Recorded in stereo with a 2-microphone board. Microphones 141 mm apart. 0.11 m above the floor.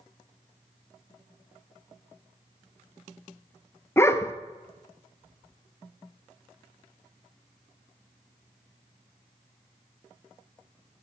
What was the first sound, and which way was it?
A dog barking, 15° left (ahead or behind).